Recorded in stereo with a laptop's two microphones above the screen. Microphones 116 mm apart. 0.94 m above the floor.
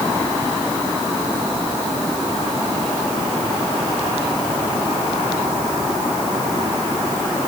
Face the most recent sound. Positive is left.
No sound to turn to.